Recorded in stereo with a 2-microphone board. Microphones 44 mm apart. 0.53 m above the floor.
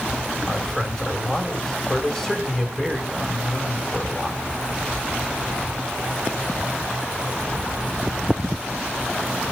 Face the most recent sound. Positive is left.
turn(degrees=10)  # may be behind; listen again after turning